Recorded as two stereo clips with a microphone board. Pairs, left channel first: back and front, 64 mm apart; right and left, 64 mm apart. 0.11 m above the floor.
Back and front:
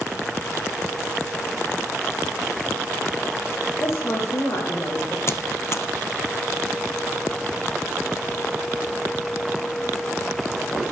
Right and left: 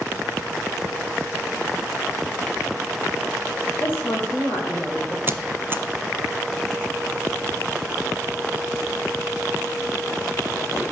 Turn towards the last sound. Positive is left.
turn(degrees=140)